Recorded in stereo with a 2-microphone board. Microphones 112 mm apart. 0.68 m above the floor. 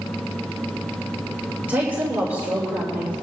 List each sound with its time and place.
1.7 s a woman speaking: 15° right (ahead or behind), 2.5 m